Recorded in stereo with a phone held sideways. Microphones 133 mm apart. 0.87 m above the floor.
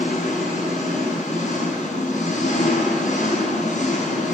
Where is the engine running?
85° left, 5.5 m.